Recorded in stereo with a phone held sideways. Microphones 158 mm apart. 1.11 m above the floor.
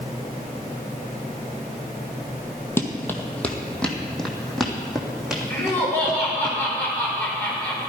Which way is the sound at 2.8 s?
15° left (ahead or behind).